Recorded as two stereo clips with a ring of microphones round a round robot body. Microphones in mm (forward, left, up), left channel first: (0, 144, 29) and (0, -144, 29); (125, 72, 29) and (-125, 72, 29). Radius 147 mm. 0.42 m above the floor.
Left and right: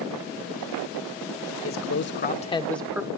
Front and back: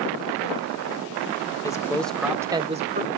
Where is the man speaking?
70° left, 1.5 m; by 3.1 s 160° right, 1.2 m.